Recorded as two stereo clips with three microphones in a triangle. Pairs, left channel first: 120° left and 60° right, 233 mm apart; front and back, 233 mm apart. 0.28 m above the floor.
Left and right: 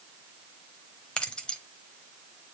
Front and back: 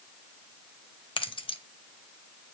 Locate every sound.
1.2 s keys jangling: 40° left, 0.8 m